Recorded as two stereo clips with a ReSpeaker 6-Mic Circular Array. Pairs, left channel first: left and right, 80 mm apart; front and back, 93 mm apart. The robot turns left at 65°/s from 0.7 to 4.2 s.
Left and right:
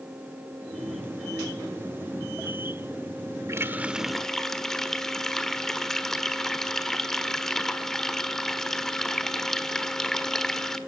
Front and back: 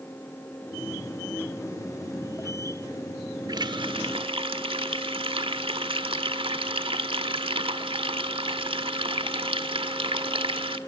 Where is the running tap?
140° right, 1.3 m; by 10.8 s 175° left, 1.3 m.